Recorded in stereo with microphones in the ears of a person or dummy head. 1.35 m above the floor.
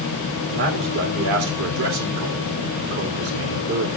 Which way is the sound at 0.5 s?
70° right (ahead or behind).